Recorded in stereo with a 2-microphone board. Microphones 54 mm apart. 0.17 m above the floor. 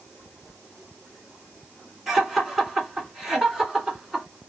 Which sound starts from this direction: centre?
Laughter, at 2.1 s.